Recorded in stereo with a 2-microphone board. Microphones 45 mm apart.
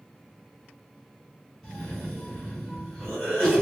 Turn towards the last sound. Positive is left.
turn(degrees=5)  # may be behind; listen again after turning